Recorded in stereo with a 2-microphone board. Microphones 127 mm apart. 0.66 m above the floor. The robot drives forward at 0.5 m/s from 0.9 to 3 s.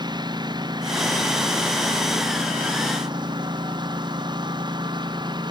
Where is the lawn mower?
35° right (ahead or behind).